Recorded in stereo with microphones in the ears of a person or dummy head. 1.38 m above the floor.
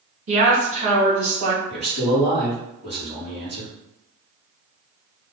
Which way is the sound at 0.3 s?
40° right (ahead or behind).